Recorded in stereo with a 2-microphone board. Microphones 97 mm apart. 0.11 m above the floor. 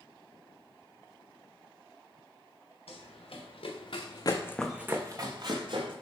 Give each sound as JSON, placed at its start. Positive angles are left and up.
{"t": 2.9, "sound": "running footsteps", "side_deg": 85, "distance_m": 1.8}